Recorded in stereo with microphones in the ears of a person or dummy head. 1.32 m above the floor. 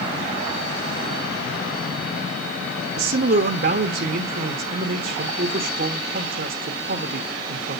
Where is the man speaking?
50° right (ahead or behind), 1.0 m.